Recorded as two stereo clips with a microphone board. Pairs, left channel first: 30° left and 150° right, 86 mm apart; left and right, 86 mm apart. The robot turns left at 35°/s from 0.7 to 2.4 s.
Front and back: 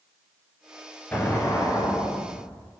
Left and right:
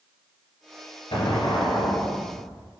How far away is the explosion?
About 1.8 m.